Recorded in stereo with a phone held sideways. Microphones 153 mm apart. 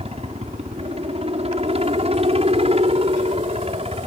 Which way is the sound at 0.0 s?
40° right (ahead or behind).